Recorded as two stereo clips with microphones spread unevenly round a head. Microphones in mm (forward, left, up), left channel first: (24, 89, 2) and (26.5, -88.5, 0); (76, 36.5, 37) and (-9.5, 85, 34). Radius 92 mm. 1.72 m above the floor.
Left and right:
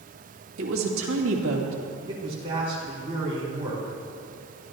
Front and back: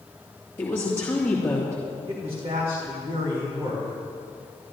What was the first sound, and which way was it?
A woman speaking, 105° right.